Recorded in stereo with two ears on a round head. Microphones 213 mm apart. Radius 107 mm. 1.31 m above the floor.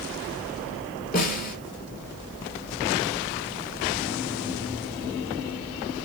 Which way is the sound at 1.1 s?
40° left (ahead or behind).